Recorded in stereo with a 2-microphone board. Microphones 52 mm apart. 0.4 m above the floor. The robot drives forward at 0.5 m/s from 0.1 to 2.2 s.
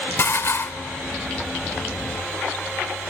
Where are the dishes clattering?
50° left (ahead or behind), 0.7 m.